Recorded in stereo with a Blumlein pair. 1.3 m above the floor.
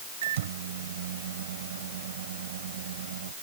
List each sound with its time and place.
0.2 s a microwave: 60° right